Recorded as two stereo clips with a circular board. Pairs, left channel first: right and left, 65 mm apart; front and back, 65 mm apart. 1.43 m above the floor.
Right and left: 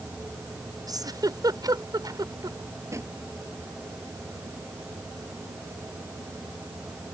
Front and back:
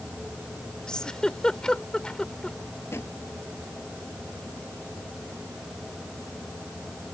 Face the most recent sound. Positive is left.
turn(degrees=50)